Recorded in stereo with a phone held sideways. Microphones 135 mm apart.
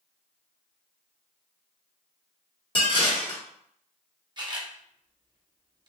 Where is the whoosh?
I don't hear a whoosh.